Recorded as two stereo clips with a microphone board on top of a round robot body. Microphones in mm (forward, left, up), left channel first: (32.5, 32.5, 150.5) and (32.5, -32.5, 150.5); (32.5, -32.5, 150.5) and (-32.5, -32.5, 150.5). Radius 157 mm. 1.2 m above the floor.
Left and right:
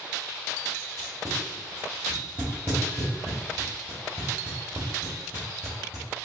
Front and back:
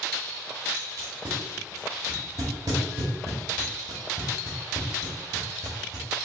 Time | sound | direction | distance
1.0 | tape being pulled | 165° right | 0.8 m